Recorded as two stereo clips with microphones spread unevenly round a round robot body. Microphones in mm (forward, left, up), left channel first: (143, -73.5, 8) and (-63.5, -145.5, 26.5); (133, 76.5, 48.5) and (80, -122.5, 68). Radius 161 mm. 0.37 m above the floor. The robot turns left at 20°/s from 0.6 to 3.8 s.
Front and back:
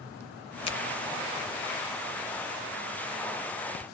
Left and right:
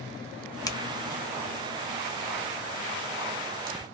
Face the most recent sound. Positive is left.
turn(degrees=-30)